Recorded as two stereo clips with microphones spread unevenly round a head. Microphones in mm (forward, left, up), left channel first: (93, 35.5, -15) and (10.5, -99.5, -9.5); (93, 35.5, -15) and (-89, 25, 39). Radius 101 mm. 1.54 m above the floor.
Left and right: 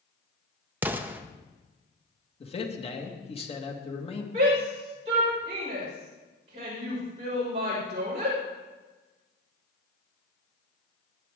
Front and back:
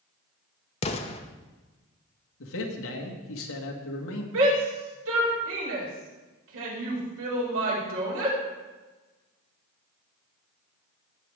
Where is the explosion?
55° right, 0.8 m.